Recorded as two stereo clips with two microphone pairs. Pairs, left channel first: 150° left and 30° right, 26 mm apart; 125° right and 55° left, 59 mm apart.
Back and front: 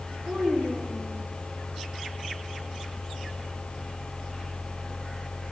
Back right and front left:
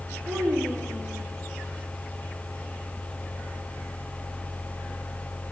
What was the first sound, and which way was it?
A child speaking, 25° left.